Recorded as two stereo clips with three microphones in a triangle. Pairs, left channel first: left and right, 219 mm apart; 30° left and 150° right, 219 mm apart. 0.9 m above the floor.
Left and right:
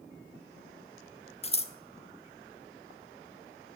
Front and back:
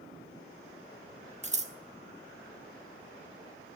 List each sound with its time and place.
1.4 s scissors: 155° left, 1.0 m